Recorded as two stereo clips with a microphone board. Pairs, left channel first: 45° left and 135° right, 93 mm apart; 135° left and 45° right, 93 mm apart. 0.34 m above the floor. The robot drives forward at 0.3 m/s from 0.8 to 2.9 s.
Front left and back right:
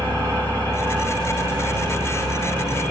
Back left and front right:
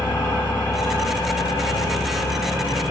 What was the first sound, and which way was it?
An engine running, 165° right.